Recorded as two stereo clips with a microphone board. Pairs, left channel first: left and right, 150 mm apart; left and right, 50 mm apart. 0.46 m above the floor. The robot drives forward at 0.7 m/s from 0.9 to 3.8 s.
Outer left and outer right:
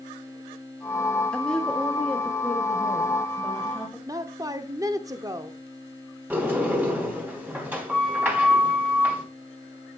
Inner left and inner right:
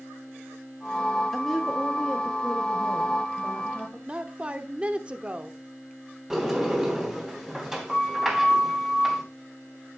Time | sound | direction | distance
1.3 | a woman speaking | 5° left (ahead or behind) | 0.8 m
4.1 | a woman speaking | 25° right (ahead or behind) | 0.9 m
6.3 | a sliding door | 10° right (ahead or behind) | 3.5 m